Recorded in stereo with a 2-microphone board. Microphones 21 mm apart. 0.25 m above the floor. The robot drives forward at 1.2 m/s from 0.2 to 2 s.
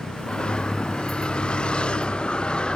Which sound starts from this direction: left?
A vehicle, at 0.0 s.